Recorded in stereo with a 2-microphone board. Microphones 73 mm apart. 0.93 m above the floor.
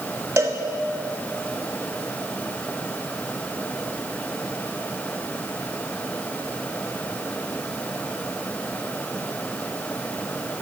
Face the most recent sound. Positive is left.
turn(degrees=-35)  # may be behind; listen again after turning